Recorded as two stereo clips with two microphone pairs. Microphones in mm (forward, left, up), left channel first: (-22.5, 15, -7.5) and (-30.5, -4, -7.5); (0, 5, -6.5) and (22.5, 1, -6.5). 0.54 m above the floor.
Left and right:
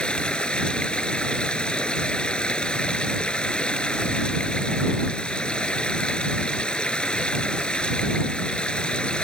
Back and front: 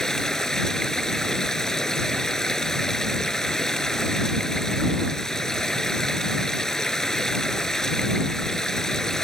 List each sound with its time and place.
0.0 s running water: 100° left